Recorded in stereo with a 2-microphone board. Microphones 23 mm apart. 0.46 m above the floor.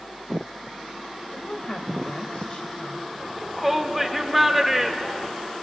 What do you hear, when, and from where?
1.3 s a woman speaking: 45° left (ahead or behind), 2.5 m
3.2 s a shout: 5° right (ahead or behind), 1.5 m